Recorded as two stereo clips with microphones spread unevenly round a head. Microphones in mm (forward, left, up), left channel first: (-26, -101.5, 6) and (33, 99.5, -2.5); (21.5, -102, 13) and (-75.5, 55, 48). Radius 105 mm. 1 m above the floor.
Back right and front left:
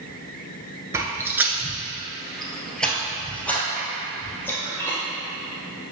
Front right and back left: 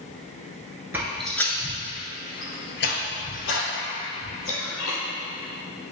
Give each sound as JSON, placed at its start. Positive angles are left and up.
{"t": 0.9, "sound": "footsteps", "azimuth_deg": 130, "distance_m": 1.0}